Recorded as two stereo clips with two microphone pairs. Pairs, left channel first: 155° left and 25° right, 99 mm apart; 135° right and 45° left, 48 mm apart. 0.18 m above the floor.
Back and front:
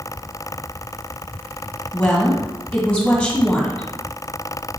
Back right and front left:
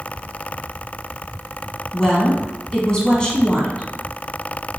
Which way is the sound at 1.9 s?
150° right.